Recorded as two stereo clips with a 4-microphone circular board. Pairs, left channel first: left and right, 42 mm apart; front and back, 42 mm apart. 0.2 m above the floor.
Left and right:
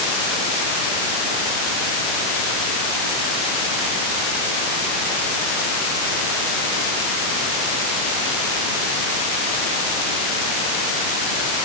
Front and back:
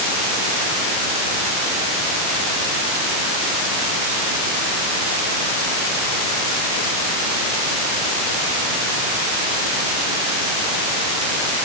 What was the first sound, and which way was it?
Only background noise.